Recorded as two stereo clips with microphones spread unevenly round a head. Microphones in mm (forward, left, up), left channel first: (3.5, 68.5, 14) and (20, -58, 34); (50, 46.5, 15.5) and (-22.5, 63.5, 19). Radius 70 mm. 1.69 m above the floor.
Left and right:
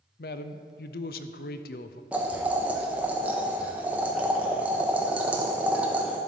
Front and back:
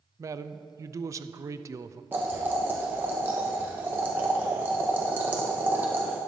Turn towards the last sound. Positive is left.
turn(degrees=-140)